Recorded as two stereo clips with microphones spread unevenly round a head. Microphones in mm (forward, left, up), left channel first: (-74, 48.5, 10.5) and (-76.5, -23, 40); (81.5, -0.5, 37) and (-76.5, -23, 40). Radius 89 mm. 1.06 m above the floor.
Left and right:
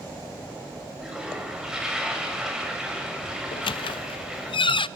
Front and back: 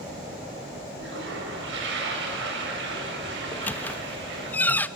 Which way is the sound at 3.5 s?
90° left.